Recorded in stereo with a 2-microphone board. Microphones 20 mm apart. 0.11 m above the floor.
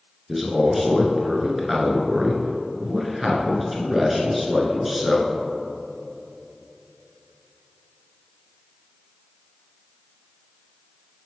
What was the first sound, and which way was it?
A man speaking, 5° right (ahead or behind).